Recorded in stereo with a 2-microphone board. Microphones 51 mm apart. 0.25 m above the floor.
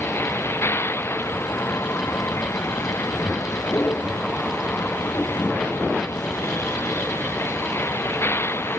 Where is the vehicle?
50° left (ahead or behind).